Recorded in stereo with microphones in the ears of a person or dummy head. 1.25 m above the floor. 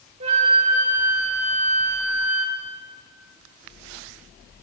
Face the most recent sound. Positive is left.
turn(degrees=-35)  # may be behind; listen again after turning